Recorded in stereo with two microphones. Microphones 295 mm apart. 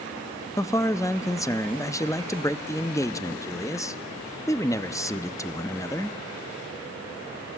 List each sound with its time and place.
0.6 s a man speaking: 10° left (ahead or behind), 0.5 m